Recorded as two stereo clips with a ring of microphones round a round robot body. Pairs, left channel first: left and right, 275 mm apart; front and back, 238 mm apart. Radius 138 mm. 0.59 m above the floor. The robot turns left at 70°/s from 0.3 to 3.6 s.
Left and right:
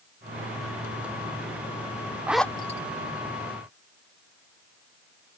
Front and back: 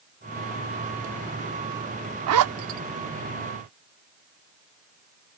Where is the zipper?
175° right; by 2.8 s 150° left.